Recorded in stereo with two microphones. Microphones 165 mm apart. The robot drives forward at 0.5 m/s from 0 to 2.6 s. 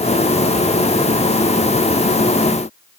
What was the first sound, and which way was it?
Only background noise.